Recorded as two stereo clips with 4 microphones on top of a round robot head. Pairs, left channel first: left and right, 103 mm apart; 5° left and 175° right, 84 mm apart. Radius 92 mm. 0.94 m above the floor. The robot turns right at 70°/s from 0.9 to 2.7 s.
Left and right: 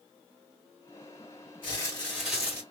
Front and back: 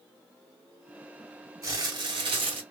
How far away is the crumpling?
About 2.5 m.